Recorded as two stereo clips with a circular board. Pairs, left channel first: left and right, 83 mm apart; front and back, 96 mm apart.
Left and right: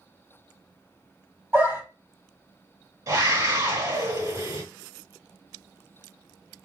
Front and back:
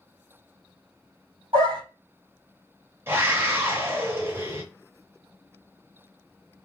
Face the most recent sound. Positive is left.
turn(degrees=-125)